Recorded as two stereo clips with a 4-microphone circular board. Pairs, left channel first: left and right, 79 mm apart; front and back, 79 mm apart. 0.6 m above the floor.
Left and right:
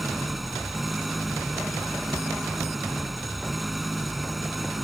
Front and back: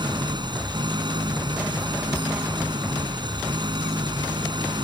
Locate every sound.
0.0 s an engine running: straight behind